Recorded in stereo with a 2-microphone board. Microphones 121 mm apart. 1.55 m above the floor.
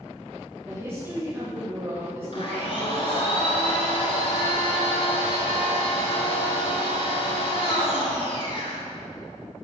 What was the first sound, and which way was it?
A woman speaking, 20° right (ahead or behind).